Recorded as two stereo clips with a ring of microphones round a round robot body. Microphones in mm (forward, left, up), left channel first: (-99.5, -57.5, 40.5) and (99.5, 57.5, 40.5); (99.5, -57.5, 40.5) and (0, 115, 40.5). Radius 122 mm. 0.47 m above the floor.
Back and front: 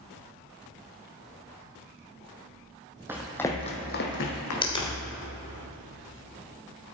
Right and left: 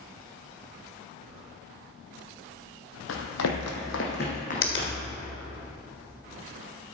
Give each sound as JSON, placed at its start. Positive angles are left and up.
{"t": 3.1, "sound": "running footsteps", "azimuth_deg": -50, "distance_m": 1.1}
{"t": 4.6, "sound": "a finger snap", "azimuth_deg": -80, "distance_m": 1.5}